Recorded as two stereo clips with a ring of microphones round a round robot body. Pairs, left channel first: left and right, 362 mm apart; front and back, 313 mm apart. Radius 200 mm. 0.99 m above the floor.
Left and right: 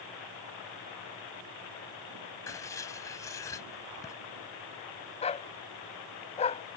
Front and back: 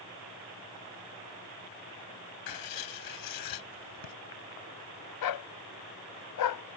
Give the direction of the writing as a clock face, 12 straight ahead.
12 o'clock.